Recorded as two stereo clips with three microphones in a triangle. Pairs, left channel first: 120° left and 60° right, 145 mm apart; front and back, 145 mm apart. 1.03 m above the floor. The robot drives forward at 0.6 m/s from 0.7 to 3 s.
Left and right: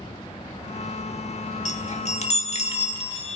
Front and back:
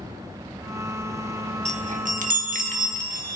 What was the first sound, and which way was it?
A chime, 150° left.